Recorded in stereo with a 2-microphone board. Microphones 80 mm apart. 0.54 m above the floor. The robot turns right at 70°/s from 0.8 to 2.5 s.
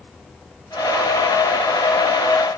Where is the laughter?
No laughter in this recording.